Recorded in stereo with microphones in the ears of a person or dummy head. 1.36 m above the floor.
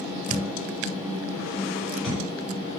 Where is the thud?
Centre (ahead or behind), 1.4 m.